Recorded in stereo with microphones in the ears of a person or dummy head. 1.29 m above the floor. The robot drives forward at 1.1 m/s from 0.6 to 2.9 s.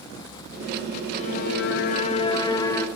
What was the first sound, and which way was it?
A violin, 40° left (ahead or behind).